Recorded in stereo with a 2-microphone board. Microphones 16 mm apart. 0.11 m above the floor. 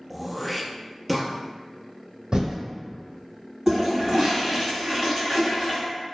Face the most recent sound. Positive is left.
turn(degrees=-30)  # may be behind; listen again after turning